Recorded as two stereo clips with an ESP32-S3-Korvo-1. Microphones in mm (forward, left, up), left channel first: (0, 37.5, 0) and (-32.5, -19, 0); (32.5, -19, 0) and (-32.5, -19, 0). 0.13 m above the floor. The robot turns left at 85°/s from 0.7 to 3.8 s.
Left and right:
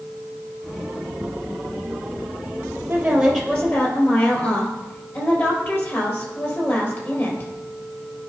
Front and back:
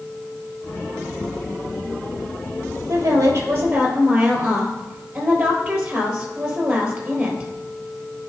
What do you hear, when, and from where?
2.9 s a woman speaking: 175° right, 3 m; by 7.5 s 105° left, 3 m